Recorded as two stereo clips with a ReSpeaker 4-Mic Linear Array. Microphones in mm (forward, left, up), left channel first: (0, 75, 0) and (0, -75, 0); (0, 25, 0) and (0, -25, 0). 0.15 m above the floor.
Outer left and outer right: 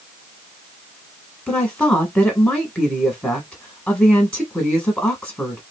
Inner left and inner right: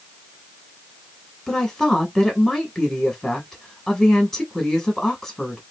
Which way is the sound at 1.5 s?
5° left (ahead or behind).